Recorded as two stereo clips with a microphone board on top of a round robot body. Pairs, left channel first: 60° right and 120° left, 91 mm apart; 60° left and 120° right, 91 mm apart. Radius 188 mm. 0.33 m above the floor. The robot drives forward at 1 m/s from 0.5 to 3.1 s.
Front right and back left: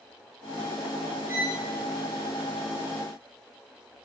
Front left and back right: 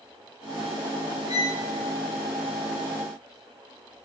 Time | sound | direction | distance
1.3 | a violin | 55° left | 5.5 m